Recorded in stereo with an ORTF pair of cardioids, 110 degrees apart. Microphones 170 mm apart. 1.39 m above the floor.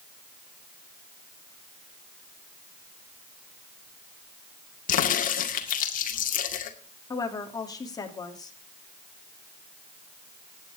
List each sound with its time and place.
4.9 s a crack: 55° left, 2 m
7.1 s a woman speaking: 20° left, 3 m